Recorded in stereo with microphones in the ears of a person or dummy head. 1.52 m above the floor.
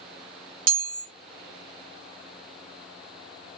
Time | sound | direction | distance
0.7 | a chime | 45° right (ahead or behind) | 0.7 m